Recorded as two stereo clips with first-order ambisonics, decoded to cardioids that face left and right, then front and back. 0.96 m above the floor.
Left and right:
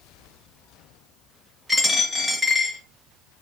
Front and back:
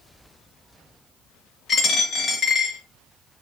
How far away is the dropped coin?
About 0.7 m.